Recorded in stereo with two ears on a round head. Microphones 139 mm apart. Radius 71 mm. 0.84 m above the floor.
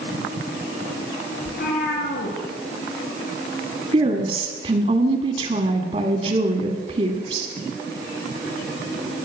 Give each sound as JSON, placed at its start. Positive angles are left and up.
{"t": 1.4, "sound": "a cat meowing", "side_deg": 65, "distance_m": 2.5}
{"t": 3.9, "sound": "a woman speaking", "side_deg": -40, "distance_m": 1.5}